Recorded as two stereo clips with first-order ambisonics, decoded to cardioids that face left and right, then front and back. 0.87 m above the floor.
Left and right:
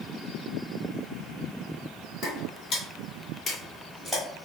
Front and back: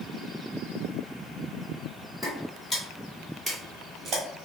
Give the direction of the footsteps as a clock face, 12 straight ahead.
10 o'clock.